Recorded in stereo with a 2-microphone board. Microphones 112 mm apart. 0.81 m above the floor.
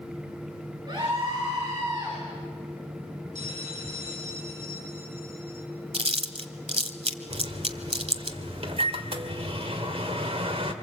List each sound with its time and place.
0.9 s a scream: 40° right (ahead or behind), 7.5 m
3.4 s a bell: 80° right, 7.5 m
5.9 s chewing: 60° right (ahead or behind), 1.4 m
7.3 s a microwave: 60° right (ahead or behind), 2.5 m